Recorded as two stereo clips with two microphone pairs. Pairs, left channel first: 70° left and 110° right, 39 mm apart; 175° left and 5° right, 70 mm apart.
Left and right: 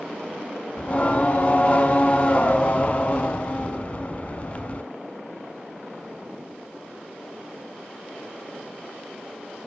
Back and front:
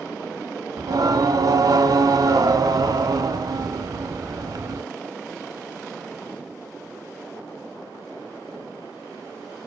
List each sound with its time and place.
0.8 s singing: 10° left, 0.7 m